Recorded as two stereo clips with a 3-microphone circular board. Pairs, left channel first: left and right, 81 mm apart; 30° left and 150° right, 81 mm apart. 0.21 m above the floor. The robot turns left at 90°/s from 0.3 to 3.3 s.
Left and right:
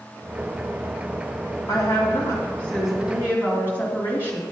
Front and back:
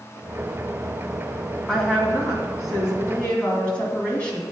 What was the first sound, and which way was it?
A woman speaking, 110° left.